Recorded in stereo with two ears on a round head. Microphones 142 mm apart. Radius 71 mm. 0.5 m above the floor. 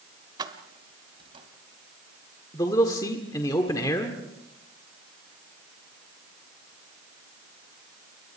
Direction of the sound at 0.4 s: 25° right (ahead or behind).